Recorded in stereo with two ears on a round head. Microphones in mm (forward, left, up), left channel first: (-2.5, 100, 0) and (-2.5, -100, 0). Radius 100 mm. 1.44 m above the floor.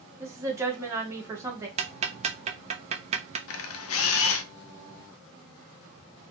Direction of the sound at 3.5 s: 65° left (ahead or behind).